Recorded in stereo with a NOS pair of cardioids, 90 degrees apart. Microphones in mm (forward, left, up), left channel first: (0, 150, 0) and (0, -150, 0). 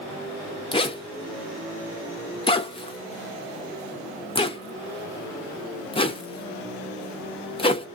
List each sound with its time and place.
0.7 s a zipper: 20° left, 0.7 m